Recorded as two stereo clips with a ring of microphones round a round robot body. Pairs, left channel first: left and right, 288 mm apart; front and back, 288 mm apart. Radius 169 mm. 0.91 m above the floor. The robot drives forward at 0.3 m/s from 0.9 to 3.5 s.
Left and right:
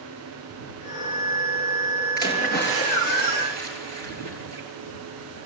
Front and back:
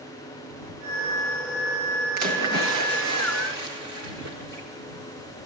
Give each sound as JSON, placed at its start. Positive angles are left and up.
{"t": 2.2, "sound": "a splash", "azimuth_deg": -150, "distance_m": 8.0}